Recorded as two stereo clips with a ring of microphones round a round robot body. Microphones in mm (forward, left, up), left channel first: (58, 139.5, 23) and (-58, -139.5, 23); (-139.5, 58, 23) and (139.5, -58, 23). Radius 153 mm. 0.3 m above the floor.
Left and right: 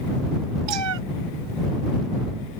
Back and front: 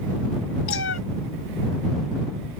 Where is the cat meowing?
150° right.